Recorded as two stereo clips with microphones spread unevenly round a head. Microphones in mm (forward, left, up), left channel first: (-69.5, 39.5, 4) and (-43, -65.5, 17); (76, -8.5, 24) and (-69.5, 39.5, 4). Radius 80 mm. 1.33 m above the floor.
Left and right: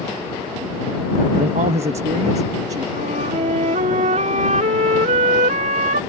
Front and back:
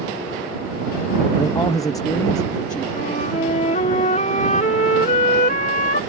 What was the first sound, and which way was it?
A man speaking, 90° right.